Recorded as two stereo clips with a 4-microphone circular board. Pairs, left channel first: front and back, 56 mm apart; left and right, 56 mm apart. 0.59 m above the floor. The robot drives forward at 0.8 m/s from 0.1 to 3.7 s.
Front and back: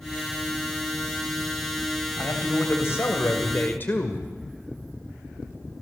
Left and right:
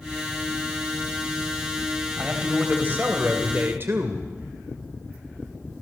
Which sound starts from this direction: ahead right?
A man speaking, at 2.2 s.